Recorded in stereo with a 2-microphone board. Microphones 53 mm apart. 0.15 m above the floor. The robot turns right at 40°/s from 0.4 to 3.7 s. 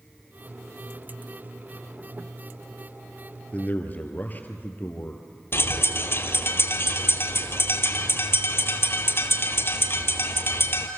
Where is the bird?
45° left (ahead or behind), 1.4 m.